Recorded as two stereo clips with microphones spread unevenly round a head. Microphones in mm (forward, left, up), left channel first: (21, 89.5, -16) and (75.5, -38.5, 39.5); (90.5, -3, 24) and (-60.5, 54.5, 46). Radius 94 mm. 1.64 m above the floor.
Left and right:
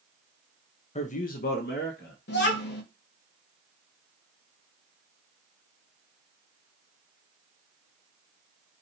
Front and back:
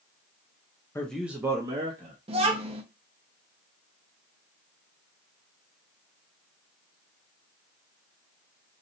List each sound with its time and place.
0.9 s a man speaking: 60° left, 0.7 m; by 2.1 s 105° left, 1.4 m
2.3 s a child speaking: 115° left, 1.0 m